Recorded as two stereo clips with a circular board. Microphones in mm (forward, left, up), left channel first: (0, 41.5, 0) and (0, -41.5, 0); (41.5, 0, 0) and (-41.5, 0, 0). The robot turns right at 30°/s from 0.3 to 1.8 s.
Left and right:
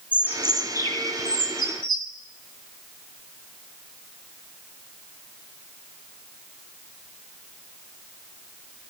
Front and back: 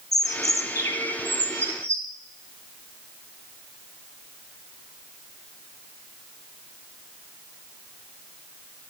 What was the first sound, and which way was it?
A bird, 30° left.